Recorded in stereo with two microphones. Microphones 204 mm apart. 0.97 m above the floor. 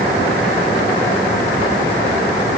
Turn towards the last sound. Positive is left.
No sound to turn to.